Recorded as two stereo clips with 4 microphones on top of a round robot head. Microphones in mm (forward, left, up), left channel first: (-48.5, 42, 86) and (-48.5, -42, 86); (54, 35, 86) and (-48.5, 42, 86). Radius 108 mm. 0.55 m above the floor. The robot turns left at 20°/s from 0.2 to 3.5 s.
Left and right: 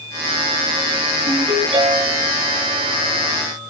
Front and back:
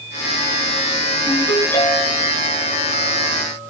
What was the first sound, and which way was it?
A ringtone, 65° right.